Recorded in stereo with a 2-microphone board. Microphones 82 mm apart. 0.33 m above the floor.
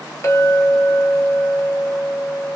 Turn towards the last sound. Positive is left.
turn(degrees=35)  # may be behind; listen again after turning